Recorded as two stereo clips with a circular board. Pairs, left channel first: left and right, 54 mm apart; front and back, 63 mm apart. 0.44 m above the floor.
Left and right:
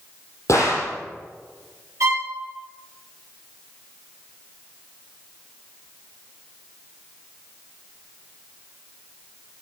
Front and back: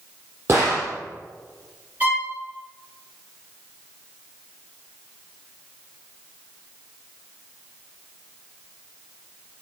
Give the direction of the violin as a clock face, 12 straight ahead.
4 o'clock.